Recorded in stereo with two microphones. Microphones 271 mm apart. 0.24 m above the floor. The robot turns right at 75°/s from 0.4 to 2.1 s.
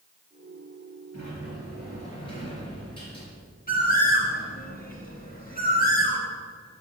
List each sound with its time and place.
1.1 s a sliding door: 90° left, 4 m; by 3.3 s 160° left, 4 m
3.7 s a bird: 30° left (ahead or behind), 1.9 m